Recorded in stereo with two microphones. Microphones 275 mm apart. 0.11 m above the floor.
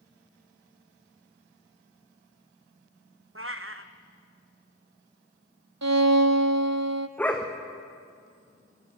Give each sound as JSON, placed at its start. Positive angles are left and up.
{"t": 3.4, "sound": "a cat meowing", "side_deg": -50, "distance_m": 1.4}
{"t": 5.8, "sound": "a violin", "side_deg": -80, "distance_m": 0.9}
{"t": 7.2, "sound": "a dog barking", "side_deg": 5, "distance_m": 3.0}